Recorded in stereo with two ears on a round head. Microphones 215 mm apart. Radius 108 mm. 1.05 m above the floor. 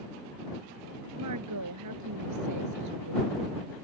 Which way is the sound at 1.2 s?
85° right.